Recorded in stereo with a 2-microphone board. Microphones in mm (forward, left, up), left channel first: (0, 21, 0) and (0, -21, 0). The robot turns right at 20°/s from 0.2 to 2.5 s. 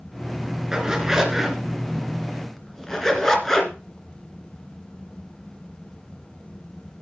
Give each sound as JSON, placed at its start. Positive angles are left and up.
{"t": 0.7, "sound": "a zipper", "side_deg": -15, "distance_m": 2.5}